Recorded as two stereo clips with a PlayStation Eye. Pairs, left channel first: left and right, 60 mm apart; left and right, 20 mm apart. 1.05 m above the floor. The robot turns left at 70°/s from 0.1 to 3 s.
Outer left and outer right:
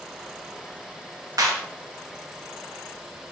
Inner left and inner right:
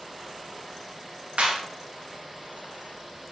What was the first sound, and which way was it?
A clap, 85° right.